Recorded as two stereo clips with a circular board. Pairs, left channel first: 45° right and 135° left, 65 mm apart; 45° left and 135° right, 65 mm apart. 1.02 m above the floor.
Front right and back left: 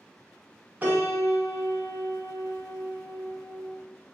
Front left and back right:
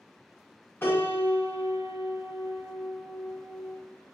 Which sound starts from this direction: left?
A piano, at 0.8 s.